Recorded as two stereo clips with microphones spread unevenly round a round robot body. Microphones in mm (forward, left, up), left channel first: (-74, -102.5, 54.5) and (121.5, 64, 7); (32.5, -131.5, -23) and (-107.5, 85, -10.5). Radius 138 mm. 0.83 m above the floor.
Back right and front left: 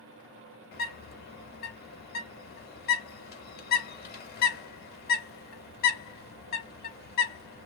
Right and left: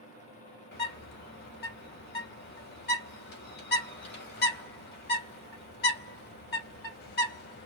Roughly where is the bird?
Right.